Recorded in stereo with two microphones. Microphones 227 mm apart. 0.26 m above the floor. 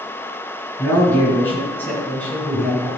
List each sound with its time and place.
0.8 s a man speaking: 10° left (ahead or behind), 4 m; by 2.9 s 5° left (ahead or behind), 2.5 m